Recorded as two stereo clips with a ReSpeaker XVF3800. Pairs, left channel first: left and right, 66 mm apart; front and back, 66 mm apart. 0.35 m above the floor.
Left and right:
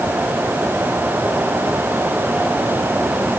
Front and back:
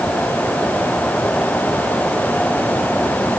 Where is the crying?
I don't hear crying.